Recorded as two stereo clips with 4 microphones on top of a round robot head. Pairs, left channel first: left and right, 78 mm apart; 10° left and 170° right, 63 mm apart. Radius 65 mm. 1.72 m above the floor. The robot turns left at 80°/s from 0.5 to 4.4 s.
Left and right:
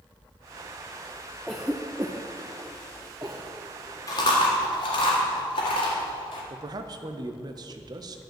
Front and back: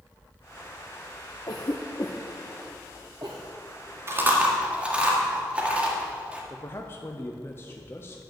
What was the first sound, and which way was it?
A cough, 5° left.